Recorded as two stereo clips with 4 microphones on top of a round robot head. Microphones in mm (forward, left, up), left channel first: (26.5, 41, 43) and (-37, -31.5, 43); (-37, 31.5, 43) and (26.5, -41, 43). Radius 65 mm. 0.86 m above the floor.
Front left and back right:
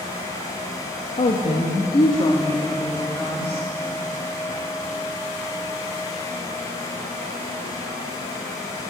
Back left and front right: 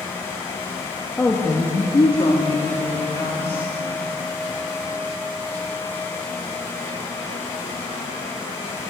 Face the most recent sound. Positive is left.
turn(degrees=110)